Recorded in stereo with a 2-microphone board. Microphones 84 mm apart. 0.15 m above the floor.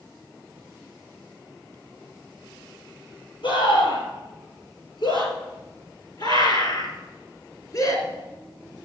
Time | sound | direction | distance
3.4 | a scream | 70° left (ahead or behind) | 4.5 m